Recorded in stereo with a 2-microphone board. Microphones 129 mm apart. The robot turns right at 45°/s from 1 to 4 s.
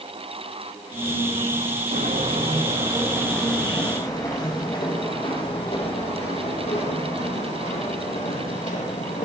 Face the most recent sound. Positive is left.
turn(degrees=70)  # may be behind; listen again after turning